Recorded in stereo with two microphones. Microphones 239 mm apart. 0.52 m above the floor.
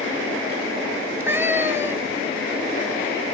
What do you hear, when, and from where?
1.0 s a cat meowing: 10° right (ahead or behind), 0.7 m